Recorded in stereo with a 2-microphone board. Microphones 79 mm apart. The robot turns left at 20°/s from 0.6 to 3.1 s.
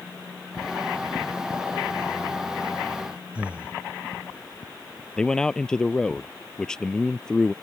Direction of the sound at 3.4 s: 15° right (ahead or behind).